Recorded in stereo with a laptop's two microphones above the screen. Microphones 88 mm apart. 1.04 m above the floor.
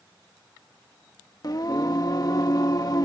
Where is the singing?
50° left (ahead or behind).